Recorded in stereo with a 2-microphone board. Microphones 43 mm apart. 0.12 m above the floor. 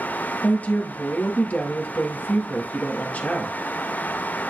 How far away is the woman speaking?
About 2 m.